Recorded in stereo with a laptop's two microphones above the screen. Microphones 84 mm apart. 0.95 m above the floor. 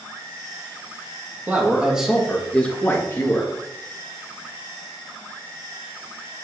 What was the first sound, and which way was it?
A man speaking, 20° right (ahead or behind).